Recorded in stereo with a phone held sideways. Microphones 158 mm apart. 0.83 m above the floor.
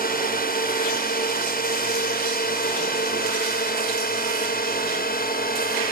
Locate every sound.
0.0 s a drone: 65° left (ahead or behind)